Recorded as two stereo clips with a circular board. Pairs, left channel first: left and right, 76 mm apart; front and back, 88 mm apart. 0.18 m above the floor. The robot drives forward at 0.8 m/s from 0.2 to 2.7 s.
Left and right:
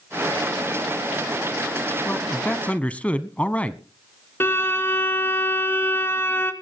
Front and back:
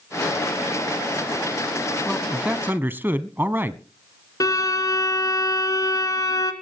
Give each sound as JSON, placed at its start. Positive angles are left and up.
{"t": 2.0, "sound": "a man speaking", "azimuth_deg": 75, "distance_m": 1.1}
{"t": 4.4, "sound": "a violin", "azimuth_deg": 35, "distance_m": 2.5}